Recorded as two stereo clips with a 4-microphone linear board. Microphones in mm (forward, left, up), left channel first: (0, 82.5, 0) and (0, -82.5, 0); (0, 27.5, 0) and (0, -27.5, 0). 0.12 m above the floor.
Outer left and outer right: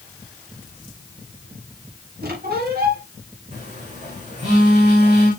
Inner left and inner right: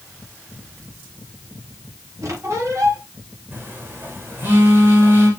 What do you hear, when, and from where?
2.2 s a squeak: 70° right (ahead or behind), 9.5 m
3.5 s a phone buzzing: 45° right (ahead or behind), 9 m